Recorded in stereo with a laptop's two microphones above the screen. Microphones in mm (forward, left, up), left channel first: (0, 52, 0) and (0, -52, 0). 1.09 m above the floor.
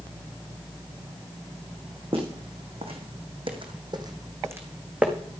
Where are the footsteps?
60° right (ahead or behind), 3.5 m; by 5.1 s 10° right (ahead or behind), 3 m.